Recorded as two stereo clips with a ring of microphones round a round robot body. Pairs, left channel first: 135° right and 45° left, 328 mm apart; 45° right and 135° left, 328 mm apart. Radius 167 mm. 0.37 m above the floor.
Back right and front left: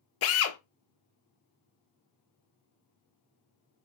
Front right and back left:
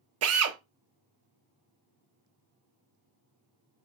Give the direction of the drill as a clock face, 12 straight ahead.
6 o'clock.